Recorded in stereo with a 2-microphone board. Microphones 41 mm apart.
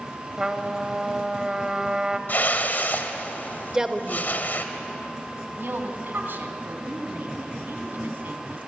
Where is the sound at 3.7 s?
15° right (ahead or behind), 1.6 m.